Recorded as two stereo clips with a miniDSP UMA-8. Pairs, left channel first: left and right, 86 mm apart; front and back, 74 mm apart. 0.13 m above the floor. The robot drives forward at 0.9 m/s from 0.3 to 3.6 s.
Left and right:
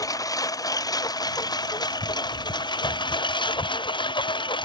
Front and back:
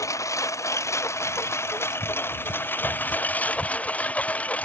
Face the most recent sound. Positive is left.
turn(degrees=70)